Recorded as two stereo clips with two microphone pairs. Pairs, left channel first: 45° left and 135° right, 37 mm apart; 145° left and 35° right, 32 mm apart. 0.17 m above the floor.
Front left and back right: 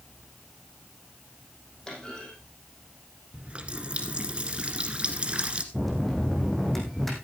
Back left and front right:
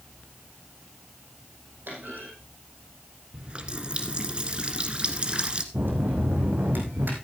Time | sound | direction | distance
1.9 | a clunk | 25° right | 5 m
3.3 | a running tap | 85° right | 1.3 m
5.7 | a bell | 40° right | 3.5 m